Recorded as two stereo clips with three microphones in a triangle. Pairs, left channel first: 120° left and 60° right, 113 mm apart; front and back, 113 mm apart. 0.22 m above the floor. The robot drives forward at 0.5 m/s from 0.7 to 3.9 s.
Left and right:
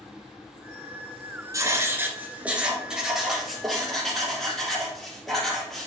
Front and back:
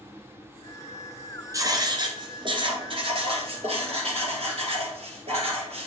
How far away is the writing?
About 1.1 m.